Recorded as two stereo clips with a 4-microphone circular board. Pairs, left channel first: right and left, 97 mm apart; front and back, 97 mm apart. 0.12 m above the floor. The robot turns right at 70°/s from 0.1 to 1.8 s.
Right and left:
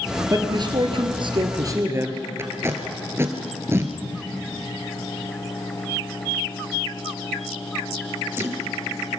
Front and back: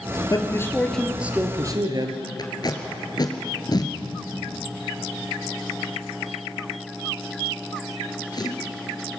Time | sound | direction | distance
0.3 | a man speaking | 40° left | 1.9 m
2.4 | tape being pulled | 30° left | 1.9 m